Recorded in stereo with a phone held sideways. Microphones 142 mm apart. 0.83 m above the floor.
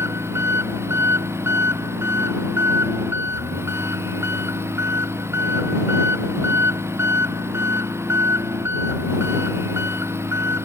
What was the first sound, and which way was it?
An engine running, 20° right (ahead or behind).